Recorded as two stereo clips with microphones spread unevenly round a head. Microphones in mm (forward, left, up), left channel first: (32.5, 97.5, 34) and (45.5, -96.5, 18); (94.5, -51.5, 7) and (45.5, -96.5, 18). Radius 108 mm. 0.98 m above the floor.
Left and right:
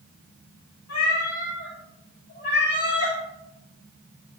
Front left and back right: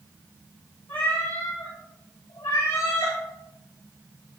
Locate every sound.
0.9 s a cat meowing: 95° left, 4 m; by 3.2 s 55° left, 4.5 m